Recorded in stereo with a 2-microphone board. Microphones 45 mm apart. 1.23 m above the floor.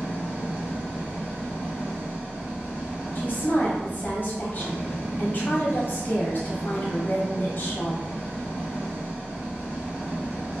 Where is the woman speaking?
40° left (ahead or behind), 1.2 m.